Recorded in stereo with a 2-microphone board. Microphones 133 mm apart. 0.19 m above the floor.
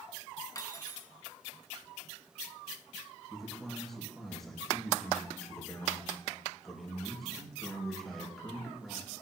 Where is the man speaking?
Centre (ahead or behind), 4 m.